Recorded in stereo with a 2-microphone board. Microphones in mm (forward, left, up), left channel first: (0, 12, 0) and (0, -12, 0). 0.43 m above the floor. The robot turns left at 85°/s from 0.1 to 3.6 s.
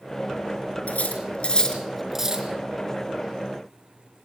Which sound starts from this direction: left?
Cutlery clinking, at 0.9 s.